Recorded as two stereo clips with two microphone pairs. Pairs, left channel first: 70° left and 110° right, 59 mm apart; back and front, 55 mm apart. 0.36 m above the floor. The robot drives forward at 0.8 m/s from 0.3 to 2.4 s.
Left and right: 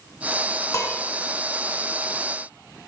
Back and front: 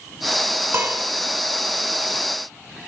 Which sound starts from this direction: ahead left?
Dishes clattering, at 0.7 s.